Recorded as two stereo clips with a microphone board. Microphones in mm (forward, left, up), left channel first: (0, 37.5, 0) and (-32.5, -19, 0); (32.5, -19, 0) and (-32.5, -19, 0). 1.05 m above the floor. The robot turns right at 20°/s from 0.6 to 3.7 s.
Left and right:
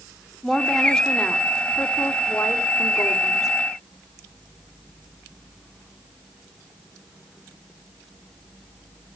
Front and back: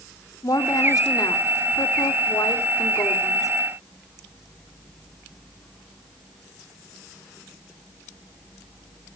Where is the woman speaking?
30° right, 2.5 m; by 3.5 s 30° left, 2.5 m.